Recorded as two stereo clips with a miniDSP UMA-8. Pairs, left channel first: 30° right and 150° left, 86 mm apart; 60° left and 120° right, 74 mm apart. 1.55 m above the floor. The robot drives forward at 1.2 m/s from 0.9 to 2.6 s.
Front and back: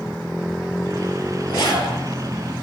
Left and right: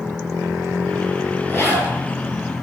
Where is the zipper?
5° right, 6.5 m.